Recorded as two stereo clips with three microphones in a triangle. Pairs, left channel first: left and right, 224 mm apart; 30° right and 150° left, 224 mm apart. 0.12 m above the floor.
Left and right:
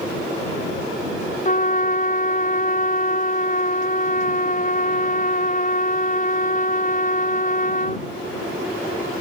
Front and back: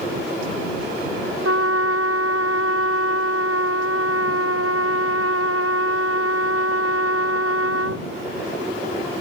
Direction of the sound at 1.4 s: 145° left.